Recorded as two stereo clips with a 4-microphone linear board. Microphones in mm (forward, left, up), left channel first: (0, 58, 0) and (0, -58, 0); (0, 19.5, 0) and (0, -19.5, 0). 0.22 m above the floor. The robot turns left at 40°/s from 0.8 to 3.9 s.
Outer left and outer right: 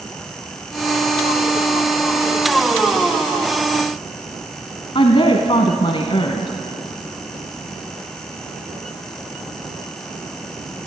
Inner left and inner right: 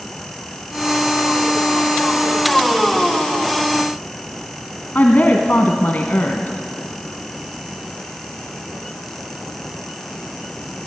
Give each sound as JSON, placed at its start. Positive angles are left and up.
{"t": 5.0, "sound": "a woman speaking", "side_deg": 50, "distance_m": 1.6}